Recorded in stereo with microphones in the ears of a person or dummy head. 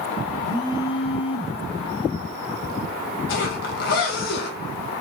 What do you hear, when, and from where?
0.4 s a phone buzzing: 25° left (ahead or behind), 1.2 m
3.3 s a zipper: 65° left (ahead or behind), 2.5 m